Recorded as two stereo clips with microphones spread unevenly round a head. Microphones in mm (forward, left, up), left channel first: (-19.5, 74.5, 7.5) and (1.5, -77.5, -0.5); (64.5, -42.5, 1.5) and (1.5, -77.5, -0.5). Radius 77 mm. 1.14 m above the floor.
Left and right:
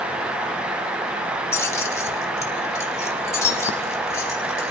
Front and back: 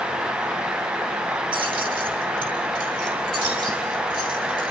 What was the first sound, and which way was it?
Keys jangling, 170° left.